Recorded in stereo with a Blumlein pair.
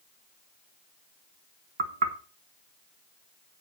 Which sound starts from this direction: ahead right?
Knocking, at 1.8 s.